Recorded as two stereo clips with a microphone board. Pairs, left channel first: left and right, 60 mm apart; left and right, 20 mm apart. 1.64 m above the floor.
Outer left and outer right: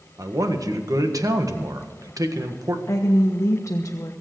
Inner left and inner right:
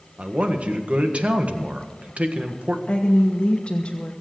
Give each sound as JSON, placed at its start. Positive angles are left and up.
{"t": 0.2, "sound": "a man speaking", "side_deg": -85, "distance_m": 1.6}
{"t": 2.9, "sound": "a woman speaking", "side_deg": 55, "distance_m": 1.2}